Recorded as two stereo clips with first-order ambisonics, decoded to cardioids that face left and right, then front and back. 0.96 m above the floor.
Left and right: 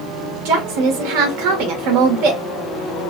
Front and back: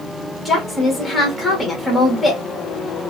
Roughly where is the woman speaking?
Right.